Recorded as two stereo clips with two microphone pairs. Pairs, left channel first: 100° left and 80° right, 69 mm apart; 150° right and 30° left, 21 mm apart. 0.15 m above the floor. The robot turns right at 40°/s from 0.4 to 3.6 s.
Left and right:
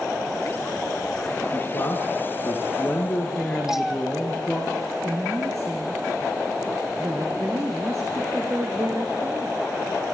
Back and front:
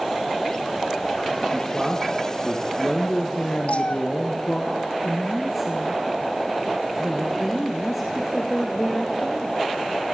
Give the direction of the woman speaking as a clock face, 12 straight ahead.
2 o'clock.